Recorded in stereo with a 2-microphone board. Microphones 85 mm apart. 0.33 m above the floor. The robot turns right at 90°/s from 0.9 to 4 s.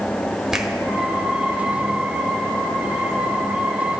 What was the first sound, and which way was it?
A finger snap, 5° right (ahead or behind).